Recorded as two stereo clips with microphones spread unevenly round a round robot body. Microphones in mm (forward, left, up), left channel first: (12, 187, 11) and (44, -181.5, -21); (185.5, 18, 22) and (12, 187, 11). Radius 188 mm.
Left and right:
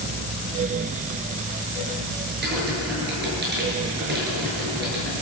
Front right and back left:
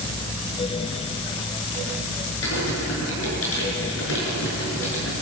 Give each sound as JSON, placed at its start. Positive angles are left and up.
{"t": 2.4, "sound": "typing on a keyboard", "azimuth_deg": -20, "distance_m": 7.5}